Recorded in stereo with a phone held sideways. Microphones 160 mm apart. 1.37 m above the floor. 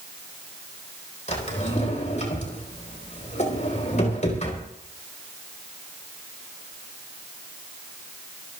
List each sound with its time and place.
1.3 s a drawer: 45° left (ahead or behind), 4 m